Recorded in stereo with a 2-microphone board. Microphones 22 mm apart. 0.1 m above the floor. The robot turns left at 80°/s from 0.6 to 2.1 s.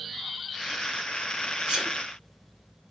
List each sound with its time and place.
1.7 s a sneeze: 55° right (ahead or behind), 4.5 m; by 2.0 s 30° right (ahead or behind), 4.5 m